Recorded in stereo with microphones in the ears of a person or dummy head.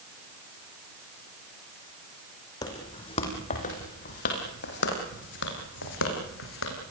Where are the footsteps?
20° left (ahead or behind), 4.5 m; by 6.7 s 75° left (ahead or behind), 6.5 m.